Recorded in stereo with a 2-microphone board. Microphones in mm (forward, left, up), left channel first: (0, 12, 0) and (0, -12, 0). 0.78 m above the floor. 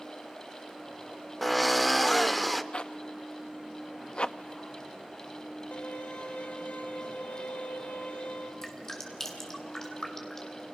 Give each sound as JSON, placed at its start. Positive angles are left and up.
{"t": 1.4, "sound": "a drill", "side_deg": 0, "distance_m": 0.7}
{"t": 2.7, "sound": "a zipper", "side_deg": 45, "distance_m": 0.5}
{"t": 5.7, "sound": "a violin", "side_deg": 85, "distance_m": 3.0}
{"t": 8.6, "sound": "dripping", "side_deg": 20, "distance_m": 3.0}